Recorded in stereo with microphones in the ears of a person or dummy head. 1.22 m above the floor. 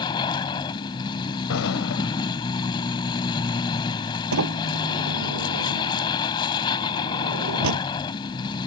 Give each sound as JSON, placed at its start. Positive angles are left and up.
{"t": 0.0, "sound": "a vehicle", "side_deg": 25}
{"t": 1.5, "sound": "an explosion", "side_deg": 75}
{"t": 4.3, "sound": "a sliding door", "side_deg": -75}